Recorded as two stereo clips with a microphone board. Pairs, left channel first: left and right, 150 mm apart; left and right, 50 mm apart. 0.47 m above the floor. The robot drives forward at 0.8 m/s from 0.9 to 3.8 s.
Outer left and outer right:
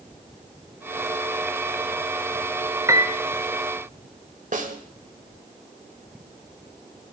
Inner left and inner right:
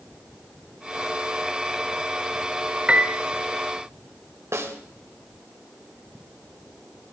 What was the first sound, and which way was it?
A piano, 25° right (ahead or behind).